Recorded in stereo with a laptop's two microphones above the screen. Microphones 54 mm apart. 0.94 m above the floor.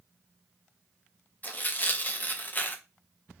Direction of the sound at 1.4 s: 35° left (ahead or behind).